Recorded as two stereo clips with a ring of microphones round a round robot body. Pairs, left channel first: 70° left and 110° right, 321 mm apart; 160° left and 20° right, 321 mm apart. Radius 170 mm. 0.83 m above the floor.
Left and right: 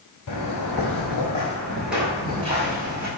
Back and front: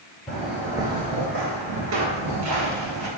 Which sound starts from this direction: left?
Footsteps, at 0.3 s.